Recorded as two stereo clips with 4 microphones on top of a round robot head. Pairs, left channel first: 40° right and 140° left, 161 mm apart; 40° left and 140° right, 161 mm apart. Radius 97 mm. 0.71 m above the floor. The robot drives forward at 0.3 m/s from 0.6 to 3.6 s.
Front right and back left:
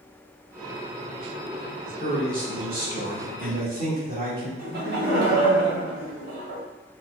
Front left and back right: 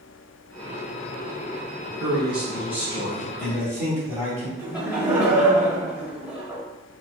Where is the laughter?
140° left, 1.4 m.